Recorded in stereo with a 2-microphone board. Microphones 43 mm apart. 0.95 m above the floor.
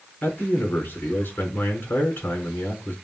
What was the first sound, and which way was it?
A man speaking, 55° left (ahead or behind).